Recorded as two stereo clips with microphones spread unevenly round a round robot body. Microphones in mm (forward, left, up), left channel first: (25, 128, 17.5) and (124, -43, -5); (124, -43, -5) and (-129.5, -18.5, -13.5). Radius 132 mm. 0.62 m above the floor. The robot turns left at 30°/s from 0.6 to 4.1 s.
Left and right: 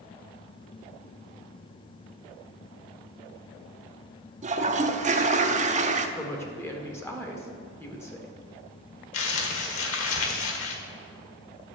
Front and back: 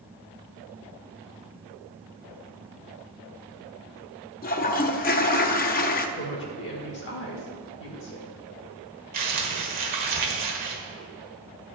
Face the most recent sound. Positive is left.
turn(degrees=115)